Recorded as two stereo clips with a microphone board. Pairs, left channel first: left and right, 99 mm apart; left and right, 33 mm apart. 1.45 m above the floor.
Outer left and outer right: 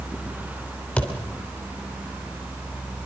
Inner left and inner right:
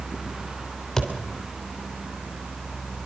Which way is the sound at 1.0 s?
10° left (ahead or behind).